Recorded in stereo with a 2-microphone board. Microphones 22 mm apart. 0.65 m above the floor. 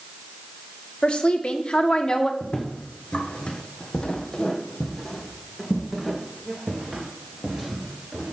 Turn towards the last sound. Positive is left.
turn(degrees=-20)  # may be behind; listen again after turning